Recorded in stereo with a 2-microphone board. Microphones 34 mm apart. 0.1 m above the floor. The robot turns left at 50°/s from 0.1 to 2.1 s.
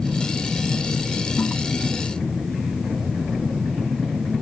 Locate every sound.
1.4 s a toilet flushing: 50° left (ahead or behind), 2 m; by 1.5 s 60° left (ahead or behind), 2 m